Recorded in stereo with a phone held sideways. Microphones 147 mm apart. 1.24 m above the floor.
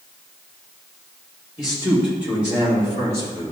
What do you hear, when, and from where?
1.6 s a man speaking: 30° left (ahead or behind), 3 m; by 3.5 s 50° left (ahead or behind), 2.5 m